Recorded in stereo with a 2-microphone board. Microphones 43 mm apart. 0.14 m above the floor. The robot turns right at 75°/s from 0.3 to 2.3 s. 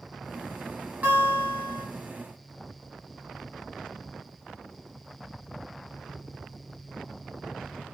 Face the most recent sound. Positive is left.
turn(degrees=40)